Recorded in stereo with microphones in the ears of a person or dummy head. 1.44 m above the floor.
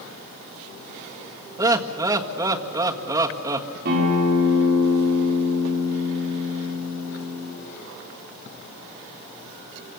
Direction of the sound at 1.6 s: 15° right (ahead or behind).